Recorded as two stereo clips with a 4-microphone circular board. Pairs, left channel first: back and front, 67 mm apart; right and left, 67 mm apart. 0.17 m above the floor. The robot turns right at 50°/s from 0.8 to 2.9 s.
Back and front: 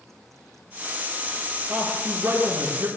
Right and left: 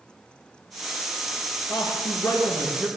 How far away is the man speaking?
About 4.5 m.